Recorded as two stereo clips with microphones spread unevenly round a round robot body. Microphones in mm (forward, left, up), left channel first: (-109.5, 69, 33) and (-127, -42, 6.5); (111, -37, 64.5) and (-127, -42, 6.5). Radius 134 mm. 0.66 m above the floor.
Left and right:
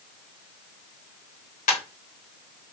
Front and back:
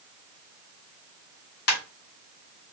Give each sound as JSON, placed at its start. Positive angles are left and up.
{"t": 1.7, "sound": "a ringtone", "azimuth_deg": 50, "distance_m": 1.1}